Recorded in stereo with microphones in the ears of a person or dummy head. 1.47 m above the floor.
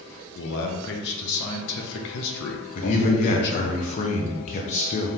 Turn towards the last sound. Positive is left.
turn(degrees=40)  # may be behind; listen again after turning